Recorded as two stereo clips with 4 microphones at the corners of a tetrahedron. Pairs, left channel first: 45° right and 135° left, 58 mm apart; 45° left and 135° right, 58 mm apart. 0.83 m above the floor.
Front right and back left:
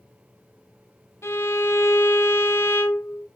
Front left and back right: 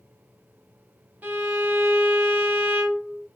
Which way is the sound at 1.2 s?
80° right.